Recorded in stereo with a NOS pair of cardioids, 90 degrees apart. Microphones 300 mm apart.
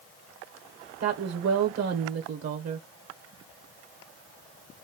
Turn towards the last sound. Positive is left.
turn(degrees=-55)